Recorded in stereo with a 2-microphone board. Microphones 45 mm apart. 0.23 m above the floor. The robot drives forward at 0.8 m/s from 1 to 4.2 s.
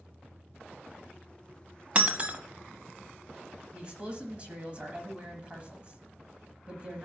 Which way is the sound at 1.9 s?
30° right (ahead or behind).